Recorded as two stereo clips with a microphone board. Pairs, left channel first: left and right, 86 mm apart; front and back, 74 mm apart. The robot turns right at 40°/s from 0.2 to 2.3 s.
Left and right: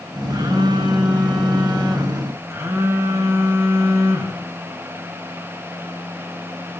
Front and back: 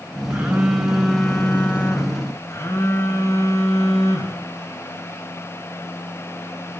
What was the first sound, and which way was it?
A phone buzzing, 115° right.